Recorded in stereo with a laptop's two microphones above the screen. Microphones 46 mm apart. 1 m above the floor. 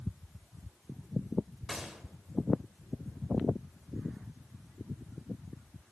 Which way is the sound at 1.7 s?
10° right (ahead or behind).